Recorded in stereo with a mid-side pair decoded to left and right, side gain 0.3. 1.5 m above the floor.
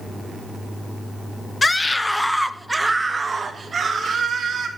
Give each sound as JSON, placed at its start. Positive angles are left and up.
{"t": 1.6, "sound": "a scream", "azimuth_deg": 35, "distance_m": 0.8}